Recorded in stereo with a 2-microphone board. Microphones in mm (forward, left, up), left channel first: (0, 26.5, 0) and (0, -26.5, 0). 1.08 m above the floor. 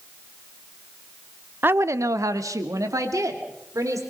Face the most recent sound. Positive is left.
turn(degrees=-75)  # may be behind; listen again after turning